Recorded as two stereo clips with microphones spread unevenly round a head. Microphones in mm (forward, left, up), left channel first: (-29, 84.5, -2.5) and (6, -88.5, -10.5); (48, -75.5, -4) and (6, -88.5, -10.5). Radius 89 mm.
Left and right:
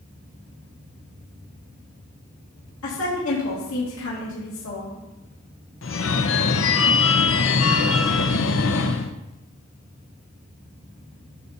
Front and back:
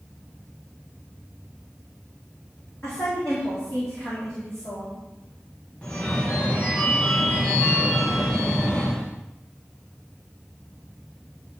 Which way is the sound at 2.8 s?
95° left.